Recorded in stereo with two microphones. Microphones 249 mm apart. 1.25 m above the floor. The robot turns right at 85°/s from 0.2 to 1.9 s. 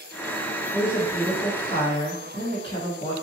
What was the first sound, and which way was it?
A woman speaking, 50° right.